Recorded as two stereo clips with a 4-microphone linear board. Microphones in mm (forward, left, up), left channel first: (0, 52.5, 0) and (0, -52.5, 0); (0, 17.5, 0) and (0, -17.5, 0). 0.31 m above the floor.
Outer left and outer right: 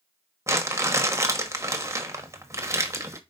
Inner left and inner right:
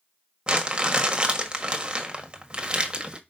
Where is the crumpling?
30° right (ahead or behind), 1.2 m.